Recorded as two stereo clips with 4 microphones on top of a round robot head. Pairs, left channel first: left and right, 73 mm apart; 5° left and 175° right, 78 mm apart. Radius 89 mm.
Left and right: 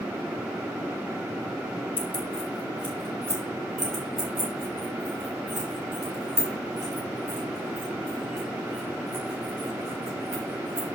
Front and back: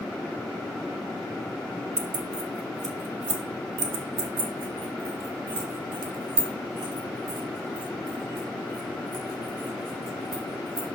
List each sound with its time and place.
2.0 s keys jangling: 165° left, 0.5 m; by 10.9 s 150° right, 5.5 m